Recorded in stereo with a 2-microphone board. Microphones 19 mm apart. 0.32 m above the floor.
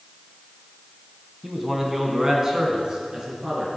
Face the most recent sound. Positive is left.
turn(degrees=-30)  # may be behind; listen again after turning